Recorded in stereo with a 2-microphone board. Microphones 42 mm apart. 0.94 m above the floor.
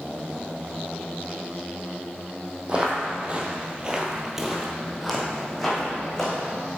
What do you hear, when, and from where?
2.7 s footsteps: 25° right (ahead or behind), 1.7 m; by 6.4 s 10° left (ahead or behind), 2.5 m